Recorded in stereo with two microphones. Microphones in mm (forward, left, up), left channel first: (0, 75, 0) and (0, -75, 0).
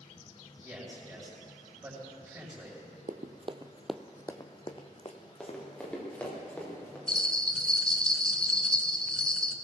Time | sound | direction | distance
0.6 | a man speaking | 15° right (ahead or behind) | 5.5 m
3.1 | running footsteps | 65° right (ahead or behind) | 0.8 m
5.4 | running footsteps | 5° left (ahead or behind) | 3.5 m
7.1 | a bell | 5° left (ahead or behind) | 0.7 m